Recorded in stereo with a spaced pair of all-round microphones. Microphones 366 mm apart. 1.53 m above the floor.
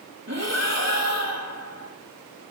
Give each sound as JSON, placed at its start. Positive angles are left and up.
{"t": 0.3, "sound": "breathing", "side_deg": -45, "distance_m": 5.0}